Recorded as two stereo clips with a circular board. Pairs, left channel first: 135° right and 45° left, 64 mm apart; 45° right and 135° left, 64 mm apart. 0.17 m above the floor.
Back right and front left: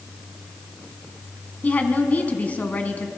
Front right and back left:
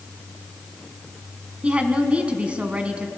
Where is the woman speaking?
175° right, 1.2 m.